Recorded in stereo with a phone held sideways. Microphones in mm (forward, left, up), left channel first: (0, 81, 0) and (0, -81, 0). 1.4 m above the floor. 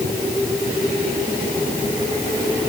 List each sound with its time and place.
Only background noise.